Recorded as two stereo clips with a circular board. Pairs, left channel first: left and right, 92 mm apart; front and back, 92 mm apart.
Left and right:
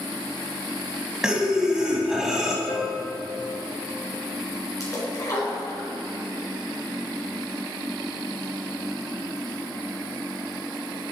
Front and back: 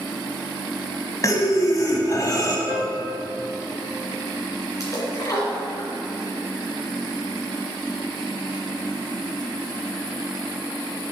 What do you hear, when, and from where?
1.2 s breathing: 10° right, 1.2 m
2.7 s a piano: 55° left, 1.4 m
4.8 s a splash: 45° left, 3 m